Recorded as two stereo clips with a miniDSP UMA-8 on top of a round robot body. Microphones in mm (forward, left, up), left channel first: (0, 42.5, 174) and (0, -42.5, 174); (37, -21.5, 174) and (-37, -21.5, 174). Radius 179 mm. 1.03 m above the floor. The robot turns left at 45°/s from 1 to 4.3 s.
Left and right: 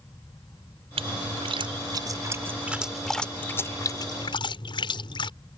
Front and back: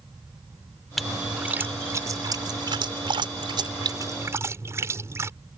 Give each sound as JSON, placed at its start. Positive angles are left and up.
{"t": 1.0, "sound": "a splash", "azimuth_deg": -90}